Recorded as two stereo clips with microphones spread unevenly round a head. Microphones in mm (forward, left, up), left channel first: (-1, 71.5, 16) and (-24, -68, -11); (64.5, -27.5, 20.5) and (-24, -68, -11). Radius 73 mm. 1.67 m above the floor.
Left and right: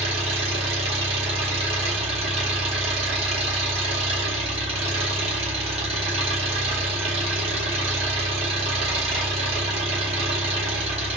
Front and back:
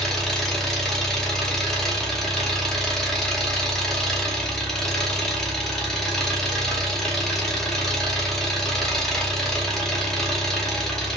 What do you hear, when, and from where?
0.0 s an engine running: 45° right, 0.8 m